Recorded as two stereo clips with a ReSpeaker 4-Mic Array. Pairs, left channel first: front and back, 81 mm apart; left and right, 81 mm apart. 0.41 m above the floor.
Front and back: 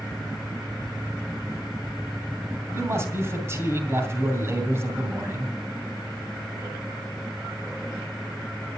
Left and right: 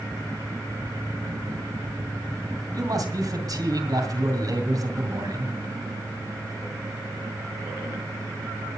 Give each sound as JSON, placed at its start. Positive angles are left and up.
{"t": 2.7, "sound": "a man speaking", "azimuth_deg": -125, "distance_m": 2.5}